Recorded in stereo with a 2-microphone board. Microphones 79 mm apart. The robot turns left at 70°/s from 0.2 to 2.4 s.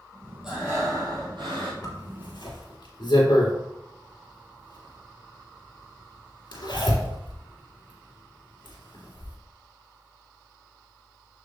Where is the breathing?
10° right, 4 m; by 1.7 s 100° right, 4 m.